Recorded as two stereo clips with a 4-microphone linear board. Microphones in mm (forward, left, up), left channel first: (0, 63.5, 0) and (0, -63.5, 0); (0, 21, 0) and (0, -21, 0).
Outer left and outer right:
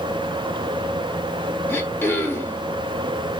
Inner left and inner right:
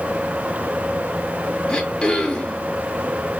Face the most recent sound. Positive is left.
turn(degrees=15)  # may be behind; listen again after turning